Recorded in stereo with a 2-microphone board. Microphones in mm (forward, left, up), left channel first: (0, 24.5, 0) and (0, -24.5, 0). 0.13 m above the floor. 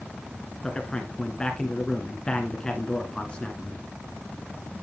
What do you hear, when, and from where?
0.6 s a man speaking: 15° left (ahead or behind), 1.4 m